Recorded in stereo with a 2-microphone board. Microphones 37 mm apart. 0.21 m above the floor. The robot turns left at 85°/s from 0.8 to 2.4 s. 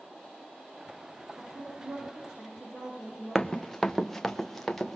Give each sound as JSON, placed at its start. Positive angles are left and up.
{"t": 1.4, "sound": "a woman speaking", "azimuth_deg": -55, "distance_m": 9.0}
{"t": 3.4, "sound": "running footsteps", "side_deg": 10, "distance_m": 0.6}